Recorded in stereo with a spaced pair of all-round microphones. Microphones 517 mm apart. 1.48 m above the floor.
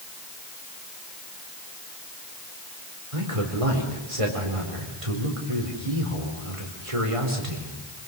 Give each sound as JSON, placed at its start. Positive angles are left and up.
{"t": 3.1, "sound": "a man speaking", "side_deg": -80, "distance_m": 4.5}